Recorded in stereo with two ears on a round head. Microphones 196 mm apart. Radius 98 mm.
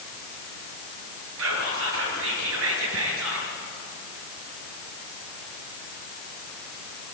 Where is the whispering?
70° right (ahead or behind), 5.5 m.